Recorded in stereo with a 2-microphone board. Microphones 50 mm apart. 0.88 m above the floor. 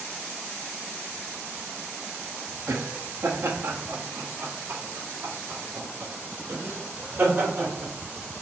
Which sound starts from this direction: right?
Laughter, at 2.7 s.